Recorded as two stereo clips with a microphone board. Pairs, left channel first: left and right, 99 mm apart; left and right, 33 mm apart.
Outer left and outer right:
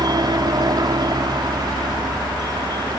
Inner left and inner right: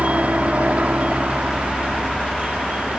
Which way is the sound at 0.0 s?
45° right (ahead or behind).